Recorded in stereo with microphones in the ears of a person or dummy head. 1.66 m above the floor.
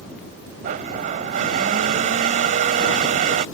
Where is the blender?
45° right (ahead or behind).